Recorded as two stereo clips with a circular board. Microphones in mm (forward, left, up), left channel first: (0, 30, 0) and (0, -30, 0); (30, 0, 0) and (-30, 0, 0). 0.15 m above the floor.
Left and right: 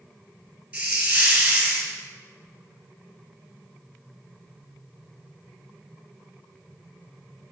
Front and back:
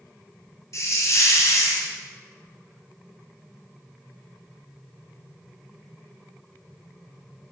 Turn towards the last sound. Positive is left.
turn(degrees=-15)